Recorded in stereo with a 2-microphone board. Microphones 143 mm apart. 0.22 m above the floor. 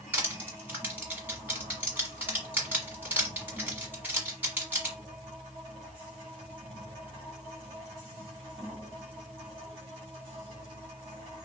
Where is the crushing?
15° right (ahead or behind), 1.5 m.